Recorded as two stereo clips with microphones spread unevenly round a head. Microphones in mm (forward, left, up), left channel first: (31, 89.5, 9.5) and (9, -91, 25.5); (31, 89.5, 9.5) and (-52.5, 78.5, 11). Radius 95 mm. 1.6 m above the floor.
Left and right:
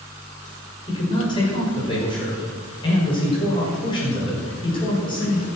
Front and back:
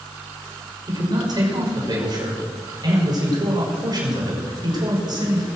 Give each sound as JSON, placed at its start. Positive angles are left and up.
{"t": 0.9, "sound": "a man speaking", "azimuth_deg": 150, "distance_m": 5.5}